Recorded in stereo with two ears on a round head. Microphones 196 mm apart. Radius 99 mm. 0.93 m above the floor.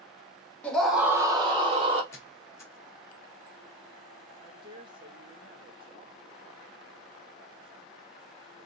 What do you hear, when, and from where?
0.6 s a scream: 5° left (ahead or behind), 0.7 m; by 2.0 s 30° right (ahead or behind), 0.8 m
2.1 s a squeak: 10° left (ahead or behind), 1.1 m
4.4 s a woman speaking: 20° right (ahead or behind), 0.8 m